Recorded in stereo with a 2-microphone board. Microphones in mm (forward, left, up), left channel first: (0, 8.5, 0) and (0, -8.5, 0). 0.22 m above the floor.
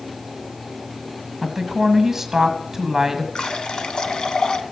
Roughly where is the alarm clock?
No alarm clock in this recording.